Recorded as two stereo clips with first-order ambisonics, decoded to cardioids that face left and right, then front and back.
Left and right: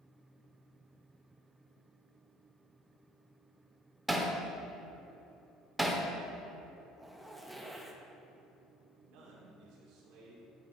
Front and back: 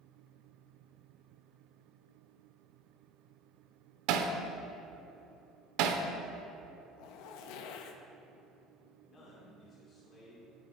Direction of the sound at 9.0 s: 60° right.